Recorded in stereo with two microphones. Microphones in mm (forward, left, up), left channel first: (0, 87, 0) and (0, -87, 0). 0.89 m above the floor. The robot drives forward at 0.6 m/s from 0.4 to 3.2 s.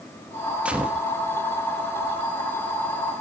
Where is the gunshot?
5° right (ahead or behind), 1.0 m.